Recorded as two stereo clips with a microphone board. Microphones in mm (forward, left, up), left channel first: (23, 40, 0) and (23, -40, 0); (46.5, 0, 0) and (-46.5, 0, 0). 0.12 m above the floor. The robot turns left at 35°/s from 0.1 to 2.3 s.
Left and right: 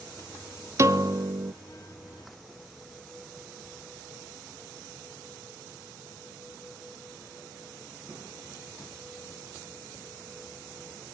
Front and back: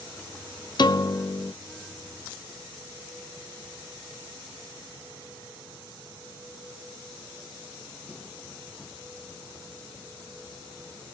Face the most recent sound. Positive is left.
turn(degrees=-90)